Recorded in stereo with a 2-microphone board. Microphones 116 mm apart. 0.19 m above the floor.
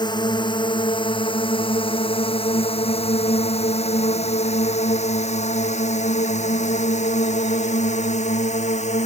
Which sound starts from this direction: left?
A drone, at 0.0 s.